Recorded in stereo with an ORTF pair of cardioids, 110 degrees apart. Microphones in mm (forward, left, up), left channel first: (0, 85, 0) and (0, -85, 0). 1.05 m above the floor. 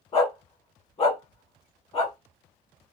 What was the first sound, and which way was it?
A dog barking, 40° left.